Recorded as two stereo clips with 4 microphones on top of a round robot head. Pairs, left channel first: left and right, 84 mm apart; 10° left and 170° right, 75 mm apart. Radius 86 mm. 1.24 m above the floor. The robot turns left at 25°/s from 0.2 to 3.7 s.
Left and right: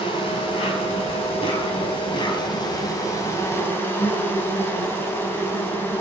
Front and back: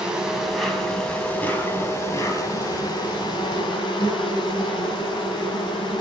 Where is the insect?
110° left, 4 m; by 6.0 s 25° left, 4 m.